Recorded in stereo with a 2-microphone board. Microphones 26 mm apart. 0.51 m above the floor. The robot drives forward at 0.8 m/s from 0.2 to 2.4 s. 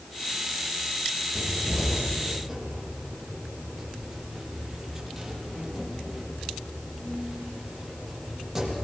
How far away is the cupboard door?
About 5 m.